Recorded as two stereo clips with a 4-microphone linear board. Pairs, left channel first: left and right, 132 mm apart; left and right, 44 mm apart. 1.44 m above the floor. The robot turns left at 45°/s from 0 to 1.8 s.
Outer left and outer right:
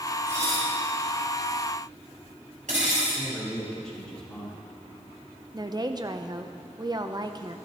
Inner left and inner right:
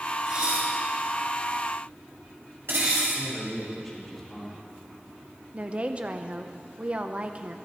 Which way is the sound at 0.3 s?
20° right (ahead or behind).